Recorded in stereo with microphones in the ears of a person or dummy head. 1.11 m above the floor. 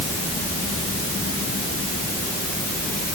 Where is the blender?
I don't hear a blender.